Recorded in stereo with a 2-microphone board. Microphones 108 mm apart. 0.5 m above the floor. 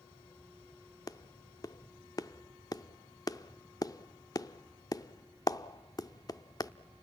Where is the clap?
35° left (ahead or behind), 0.6 m.